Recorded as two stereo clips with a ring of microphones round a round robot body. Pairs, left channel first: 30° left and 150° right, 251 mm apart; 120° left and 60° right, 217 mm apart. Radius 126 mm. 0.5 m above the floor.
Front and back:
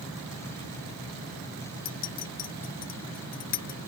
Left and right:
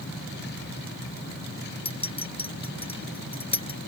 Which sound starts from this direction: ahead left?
A clink, at 1.9 s.